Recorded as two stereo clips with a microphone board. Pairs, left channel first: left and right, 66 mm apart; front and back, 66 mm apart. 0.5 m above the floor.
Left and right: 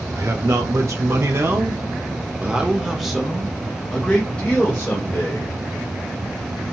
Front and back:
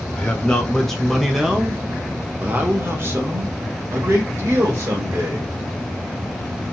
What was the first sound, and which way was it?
A man speaking, 70° right.